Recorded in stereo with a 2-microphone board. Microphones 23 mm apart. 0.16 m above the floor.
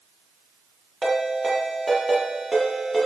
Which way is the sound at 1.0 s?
5° right (ahead or behind).